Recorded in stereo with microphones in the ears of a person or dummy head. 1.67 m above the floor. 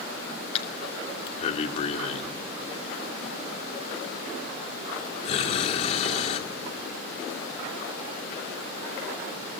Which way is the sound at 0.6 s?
35° left (ahead or behind).